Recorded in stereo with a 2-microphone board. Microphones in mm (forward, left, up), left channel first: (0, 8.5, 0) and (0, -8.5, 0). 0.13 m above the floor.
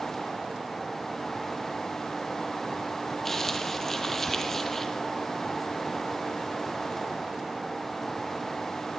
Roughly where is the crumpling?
Centre.